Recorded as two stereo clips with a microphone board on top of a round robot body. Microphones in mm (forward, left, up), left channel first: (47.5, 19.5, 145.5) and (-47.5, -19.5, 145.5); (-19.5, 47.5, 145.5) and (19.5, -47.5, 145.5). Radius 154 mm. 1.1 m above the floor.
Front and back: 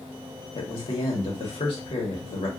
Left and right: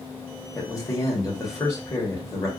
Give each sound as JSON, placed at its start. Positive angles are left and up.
{"t": 0.6, "sound": "a man speaking", "azimuth_deg": 55, "distance_m": 1.3}